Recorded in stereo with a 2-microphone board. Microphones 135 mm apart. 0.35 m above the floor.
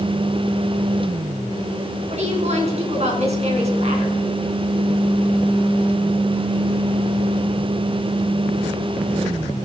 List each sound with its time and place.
2.1 s a woman speaking: 50° right (ahead or behind), 3.5 m